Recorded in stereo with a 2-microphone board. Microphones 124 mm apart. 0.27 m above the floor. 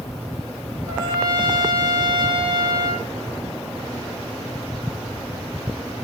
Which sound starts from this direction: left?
A trumpet, at 0.9 s.